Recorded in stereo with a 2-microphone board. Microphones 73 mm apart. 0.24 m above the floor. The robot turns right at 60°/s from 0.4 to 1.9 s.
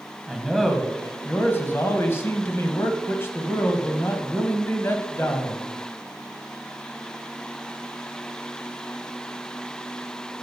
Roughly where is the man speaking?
Ahead.